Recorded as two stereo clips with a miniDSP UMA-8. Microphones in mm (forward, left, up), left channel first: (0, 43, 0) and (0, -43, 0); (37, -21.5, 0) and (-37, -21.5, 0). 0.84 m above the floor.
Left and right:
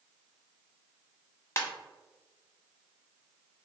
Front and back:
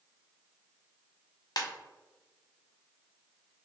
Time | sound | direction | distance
1.6 | a ringtone | 30° left | 0.8 m